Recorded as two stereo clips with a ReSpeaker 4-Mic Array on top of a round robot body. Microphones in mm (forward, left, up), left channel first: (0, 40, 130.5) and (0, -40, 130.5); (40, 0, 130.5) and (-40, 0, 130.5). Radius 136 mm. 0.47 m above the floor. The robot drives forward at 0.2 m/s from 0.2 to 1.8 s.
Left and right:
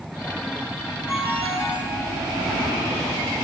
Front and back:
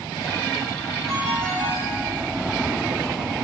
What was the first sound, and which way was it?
A ringtone, 165° right.